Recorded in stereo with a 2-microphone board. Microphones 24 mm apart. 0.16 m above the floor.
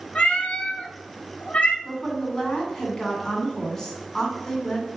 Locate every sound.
0.1 s a cat meowing: 45° left (ahead or behind), 0.5 m
1.9 s a woman speaking: 20° left (ahead or behind), 1.2 m